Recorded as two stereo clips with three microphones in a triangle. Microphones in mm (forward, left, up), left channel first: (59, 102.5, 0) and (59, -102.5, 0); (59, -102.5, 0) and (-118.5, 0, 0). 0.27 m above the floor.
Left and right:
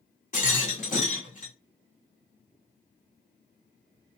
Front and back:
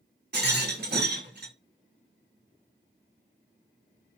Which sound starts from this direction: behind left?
A rattle, at 0.3 s.